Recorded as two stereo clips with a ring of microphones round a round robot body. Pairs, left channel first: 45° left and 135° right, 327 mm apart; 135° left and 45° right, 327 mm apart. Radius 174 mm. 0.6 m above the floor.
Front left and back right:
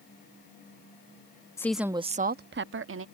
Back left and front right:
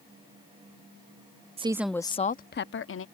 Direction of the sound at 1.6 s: 20° right.